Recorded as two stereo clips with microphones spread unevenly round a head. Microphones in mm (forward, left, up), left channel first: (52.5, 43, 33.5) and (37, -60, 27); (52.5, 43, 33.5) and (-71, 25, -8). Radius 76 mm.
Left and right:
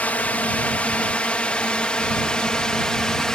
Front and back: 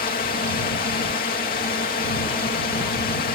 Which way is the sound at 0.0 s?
5° left.